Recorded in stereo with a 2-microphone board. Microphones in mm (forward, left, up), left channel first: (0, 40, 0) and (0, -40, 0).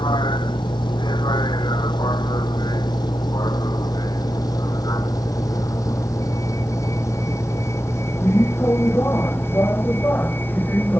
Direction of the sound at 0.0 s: 75° left (ahead or behind).